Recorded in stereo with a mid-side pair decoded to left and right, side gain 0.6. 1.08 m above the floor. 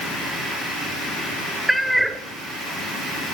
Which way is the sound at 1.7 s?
10° right.